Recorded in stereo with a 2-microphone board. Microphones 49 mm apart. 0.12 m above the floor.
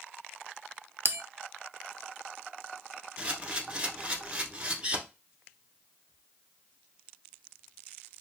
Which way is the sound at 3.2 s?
25° right (ahead or behind).